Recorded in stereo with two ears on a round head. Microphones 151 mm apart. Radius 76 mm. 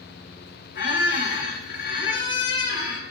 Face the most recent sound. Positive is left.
turn(degrees=65)  # may be behind; listen again after turning